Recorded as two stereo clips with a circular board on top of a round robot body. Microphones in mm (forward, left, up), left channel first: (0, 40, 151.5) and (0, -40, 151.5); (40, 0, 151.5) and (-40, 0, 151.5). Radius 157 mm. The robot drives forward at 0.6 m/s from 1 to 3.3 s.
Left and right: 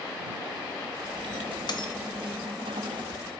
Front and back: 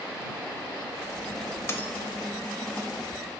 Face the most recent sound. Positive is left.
turn(degrees=150)